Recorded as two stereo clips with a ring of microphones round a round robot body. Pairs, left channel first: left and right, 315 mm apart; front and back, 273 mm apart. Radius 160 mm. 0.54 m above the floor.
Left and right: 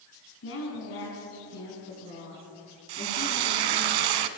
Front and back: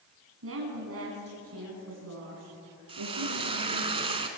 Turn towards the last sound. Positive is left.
turn(degrees=-105)